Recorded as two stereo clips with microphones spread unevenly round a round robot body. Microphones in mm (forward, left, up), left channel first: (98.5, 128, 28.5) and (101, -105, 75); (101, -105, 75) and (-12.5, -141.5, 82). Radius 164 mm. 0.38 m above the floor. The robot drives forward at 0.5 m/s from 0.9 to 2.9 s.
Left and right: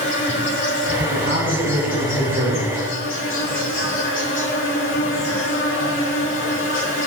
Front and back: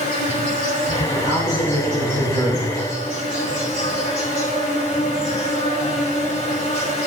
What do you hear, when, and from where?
0.0 s an insect: 55° left, 5.5 m; by 7.1 s 65° left, 5 m
1.1 s a man speaking: 40° right, 4 m; by 2.7 s 50° right, 3.5 m